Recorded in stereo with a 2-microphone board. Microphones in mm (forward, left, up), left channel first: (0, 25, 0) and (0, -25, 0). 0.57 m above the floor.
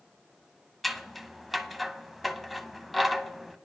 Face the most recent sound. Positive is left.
turn(degrees=0)  # may be behind; listen again after turning